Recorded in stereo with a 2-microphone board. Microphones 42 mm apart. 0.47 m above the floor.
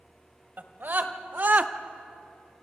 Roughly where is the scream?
Right.